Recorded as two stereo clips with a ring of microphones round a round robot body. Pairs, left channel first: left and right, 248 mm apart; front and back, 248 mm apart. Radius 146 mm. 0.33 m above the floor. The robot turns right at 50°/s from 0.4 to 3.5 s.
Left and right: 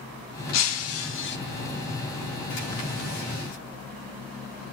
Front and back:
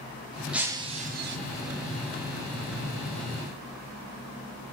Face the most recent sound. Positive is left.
turn(degrees=-120)